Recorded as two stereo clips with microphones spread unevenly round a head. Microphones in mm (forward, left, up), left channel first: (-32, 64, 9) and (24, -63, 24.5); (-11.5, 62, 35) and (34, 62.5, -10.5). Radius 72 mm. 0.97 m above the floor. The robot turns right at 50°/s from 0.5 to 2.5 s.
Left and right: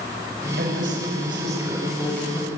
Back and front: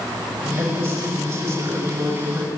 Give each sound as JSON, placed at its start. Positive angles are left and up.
{"t": 0.6, "sound": "a woman speaking", "azimuth_deg": -45, "distance_m": 7.0}